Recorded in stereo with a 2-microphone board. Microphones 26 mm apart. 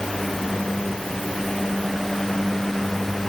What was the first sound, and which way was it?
Only background noise.